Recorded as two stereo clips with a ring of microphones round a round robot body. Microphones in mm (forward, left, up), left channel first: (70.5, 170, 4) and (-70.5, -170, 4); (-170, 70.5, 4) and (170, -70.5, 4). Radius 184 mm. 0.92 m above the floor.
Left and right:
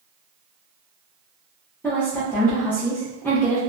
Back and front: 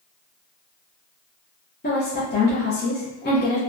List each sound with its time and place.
1.8 s a woman speaking: 145° left, 0.6 m